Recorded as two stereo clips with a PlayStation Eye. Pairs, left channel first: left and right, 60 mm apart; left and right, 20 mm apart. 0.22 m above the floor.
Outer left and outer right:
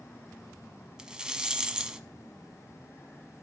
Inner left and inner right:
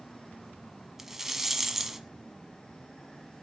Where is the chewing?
No chewing in this recording.